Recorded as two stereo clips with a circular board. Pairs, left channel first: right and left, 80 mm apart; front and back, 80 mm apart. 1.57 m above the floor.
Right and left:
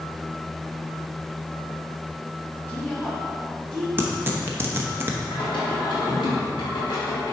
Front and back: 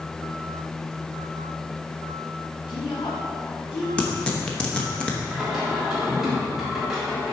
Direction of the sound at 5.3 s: 95° right.